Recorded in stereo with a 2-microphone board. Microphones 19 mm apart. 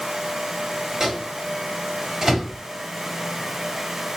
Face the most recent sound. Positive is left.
turn(degrees=-30)  # may be behind; listen again after turning